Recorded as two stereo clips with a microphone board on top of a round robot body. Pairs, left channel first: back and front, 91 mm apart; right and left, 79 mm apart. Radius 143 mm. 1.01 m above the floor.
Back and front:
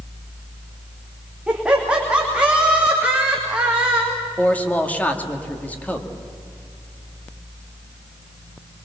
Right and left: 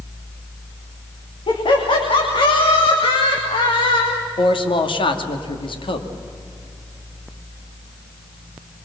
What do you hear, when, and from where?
1.5 s laughter: 80° right, 3 m
4.4 s a man speaking: 105° right, 2 m